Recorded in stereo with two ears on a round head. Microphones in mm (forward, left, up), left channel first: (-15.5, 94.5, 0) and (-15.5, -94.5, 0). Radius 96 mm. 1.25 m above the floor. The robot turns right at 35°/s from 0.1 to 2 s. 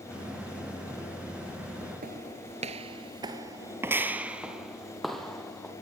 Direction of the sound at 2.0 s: 40° right (ahead or behind).